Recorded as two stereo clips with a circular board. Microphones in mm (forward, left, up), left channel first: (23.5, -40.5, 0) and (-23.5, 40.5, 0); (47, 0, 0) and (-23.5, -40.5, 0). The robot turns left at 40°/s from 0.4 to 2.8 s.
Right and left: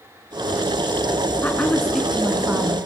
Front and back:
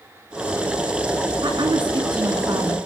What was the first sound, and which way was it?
A woman speaking, 130° right.